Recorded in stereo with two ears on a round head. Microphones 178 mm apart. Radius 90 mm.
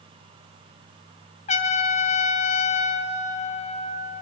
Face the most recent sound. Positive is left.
turn(degrees=35)  # may be behind; listen again after turning